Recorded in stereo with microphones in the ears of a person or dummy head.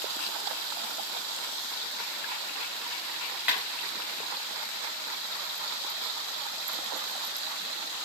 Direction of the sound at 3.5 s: 5° right (ahead or behind).